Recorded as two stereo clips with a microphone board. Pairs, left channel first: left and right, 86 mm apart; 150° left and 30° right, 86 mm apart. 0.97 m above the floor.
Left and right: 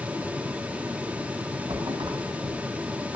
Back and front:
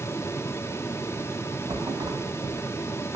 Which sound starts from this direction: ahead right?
A thud, at 1.7 s.